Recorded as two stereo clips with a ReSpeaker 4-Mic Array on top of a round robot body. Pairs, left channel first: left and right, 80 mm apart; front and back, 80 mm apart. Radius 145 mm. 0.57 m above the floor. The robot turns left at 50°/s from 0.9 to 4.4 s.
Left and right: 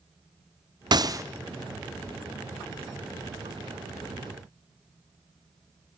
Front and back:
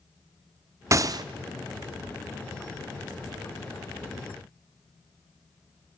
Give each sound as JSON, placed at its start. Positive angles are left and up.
{"t": 0.9, "sound": "a gunshot", "azimuth_deg": -125, "distance_m": 0.8}